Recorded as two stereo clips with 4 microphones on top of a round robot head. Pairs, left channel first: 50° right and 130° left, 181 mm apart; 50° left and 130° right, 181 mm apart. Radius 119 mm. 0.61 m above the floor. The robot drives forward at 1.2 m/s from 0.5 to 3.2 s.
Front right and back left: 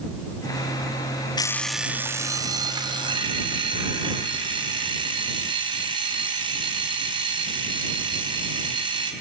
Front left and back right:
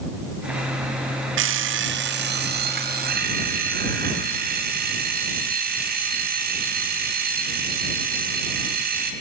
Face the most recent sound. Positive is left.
turn(degrees=-165)